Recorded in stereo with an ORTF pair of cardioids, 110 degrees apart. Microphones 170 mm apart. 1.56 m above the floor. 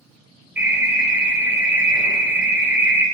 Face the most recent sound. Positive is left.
turn(degrees=-10)